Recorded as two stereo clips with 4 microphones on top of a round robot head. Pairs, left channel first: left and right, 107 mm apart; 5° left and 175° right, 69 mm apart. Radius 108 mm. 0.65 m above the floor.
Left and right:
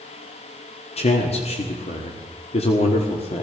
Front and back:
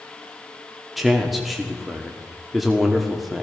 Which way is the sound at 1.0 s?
95° left.